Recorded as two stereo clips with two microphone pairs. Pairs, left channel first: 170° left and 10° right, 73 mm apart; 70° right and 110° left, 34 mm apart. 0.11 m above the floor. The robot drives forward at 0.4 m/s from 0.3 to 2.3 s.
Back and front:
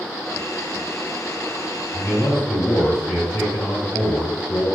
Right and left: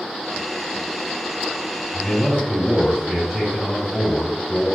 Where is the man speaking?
170° left, 1.9 m.